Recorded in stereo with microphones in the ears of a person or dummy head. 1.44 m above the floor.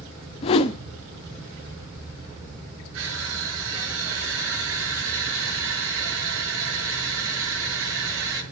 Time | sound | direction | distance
0.4 | a whoosh | 35° left (ahead or behind) | 1.0 m
2.9 | crushing | 80° right | 7.5 m